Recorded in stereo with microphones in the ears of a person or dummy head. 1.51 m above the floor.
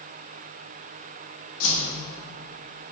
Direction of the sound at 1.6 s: 65° left (ahead or behind).